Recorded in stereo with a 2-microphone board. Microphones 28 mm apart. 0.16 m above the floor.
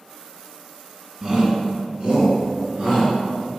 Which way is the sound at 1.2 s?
20° right (ahead or behind).